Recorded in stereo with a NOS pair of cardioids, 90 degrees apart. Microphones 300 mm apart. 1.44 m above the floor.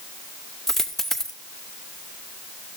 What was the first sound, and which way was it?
A dropped coin, straight ahead.